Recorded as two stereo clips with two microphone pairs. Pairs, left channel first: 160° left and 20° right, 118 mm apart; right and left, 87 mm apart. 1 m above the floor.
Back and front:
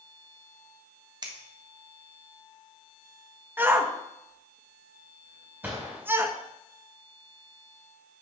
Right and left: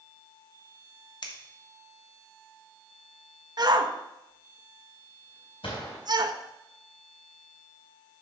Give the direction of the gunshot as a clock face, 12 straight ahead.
3 o'clock.